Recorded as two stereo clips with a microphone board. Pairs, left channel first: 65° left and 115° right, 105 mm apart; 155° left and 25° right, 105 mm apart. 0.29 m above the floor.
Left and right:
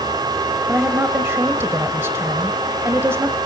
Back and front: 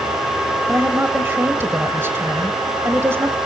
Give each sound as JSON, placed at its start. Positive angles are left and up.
{"t": 0.7, "sound": "a woman speaking", "azimuth_deg": -70, "distance_m": 1.1}